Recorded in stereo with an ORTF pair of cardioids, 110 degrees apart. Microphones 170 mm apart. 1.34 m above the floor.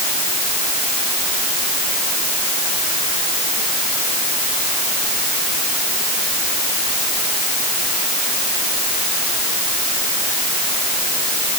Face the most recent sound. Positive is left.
No sound to turn to.